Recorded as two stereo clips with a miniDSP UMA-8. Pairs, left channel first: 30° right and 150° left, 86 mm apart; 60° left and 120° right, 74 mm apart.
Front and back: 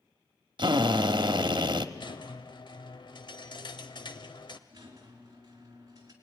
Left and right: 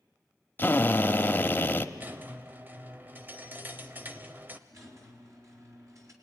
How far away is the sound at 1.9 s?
About 1.4 m.